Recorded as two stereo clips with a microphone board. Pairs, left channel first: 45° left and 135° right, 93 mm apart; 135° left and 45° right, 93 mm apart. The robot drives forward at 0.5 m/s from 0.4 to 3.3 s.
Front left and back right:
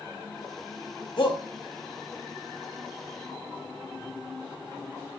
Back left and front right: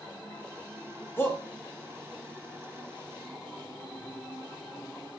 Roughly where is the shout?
Left.